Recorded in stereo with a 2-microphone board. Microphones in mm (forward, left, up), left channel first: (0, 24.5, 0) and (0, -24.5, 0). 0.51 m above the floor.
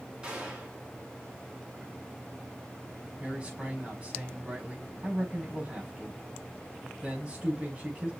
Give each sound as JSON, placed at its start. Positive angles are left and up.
{"t": 0.2, "sound": "a gunshot", "side_deg": -20, "distance_m": 5.0}
{"t": 3.2, "sound": "a man speaking", "side_deg": -25, "distance_m": 5.0}